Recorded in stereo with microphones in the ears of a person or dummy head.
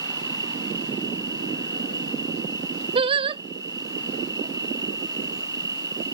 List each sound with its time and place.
0.0 s an insect: 20° right (ahead or behind)
3.0 s singing: 30° right (ahead or behind)